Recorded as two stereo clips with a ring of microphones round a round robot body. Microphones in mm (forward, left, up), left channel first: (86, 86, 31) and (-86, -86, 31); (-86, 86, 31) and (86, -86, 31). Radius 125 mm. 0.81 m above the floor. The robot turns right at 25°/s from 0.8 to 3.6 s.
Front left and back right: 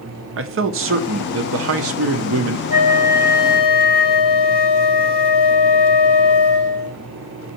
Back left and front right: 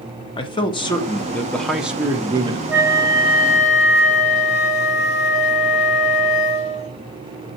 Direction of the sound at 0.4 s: 155° right.